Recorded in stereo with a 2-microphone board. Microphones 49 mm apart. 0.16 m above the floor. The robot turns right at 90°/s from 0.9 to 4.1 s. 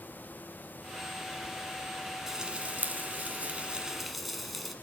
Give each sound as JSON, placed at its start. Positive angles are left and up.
{"t": 2.3, "sound": "frying", "side_deg": -10, "distance_m": 1.4}